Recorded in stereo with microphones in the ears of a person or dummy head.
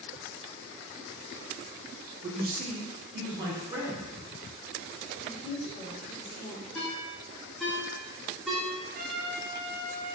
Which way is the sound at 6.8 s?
5° right (ahead or behind).